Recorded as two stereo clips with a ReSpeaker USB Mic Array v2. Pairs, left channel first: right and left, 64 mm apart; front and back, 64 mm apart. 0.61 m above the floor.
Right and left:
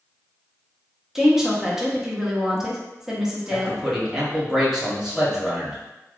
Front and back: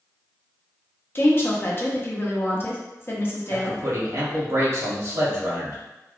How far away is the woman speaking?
About 0.7 m.